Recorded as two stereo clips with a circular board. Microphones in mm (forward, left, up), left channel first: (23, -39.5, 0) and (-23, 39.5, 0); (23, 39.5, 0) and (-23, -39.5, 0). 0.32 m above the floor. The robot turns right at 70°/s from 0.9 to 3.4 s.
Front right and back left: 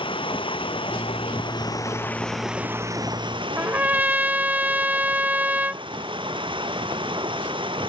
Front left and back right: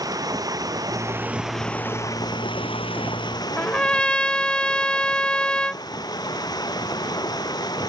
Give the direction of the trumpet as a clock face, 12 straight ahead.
8 o'clock.